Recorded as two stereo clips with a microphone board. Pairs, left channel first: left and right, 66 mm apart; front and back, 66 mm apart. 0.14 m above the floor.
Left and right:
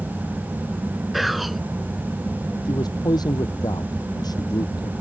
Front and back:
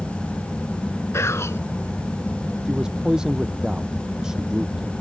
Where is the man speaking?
100° left.